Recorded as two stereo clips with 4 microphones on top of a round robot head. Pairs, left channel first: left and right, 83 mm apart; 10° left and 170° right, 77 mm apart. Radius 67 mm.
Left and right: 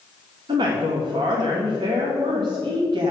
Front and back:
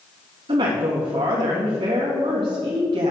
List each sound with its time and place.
0.5 s a woman speaking: 135° right, 1.6 m